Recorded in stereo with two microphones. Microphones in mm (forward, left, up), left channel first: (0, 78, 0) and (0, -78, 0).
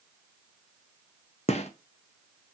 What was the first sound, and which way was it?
A gunshot, 45° left (ahead or behind).